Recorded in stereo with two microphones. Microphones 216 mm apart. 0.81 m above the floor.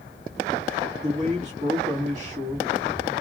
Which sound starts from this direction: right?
A man speaking, at 1.0 s.